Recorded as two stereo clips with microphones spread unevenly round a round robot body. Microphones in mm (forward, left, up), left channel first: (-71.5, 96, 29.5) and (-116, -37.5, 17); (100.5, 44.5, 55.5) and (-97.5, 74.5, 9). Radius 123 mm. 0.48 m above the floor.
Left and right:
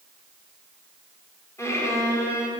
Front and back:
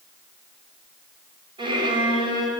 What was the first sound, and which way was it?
A violin, 135° left.